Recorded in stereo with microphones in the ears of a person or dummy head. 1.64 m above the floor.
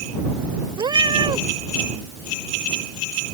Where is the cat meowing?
20° right (ahead or behind).